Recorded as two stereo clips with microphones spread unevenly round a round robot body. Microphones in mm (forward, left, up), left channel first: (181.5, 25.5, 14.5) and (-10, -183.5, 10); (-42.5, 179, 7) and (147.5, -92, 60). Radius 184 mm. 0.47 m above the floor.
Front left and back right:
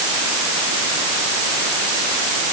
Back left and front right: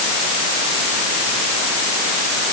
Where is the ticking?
No ticking in this recording.